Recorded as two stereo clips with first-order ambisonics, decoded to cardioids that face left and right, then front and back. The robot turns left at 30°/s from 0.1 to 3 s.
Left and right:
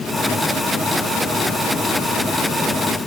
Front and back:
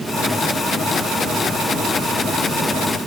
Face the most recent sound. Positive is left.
No sound to turn to.